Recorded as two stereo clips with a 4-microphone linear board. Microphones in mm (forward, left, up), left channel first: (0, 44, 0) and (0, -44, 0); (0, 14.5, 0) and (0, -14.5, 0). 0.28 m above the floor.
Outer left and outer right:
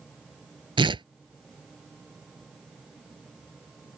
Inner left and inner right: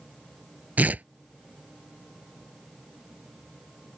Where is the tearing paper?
70° right (ahead or behind).